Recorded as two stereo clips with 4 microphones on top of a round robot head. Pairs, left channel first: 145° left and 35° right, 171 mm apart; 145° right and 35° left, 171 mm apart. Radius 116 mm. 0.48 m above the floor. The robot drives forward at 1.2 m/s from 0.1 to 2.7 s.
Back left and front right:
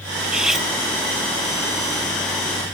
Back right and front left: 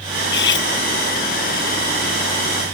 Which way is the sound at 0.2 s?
120° right.